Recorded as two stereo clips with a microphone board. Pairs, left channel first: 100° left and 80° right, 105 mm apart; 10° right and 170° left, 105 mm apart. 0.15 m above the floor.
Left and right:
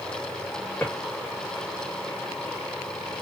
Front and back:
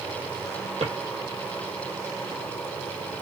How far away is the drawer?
About 1.9 m.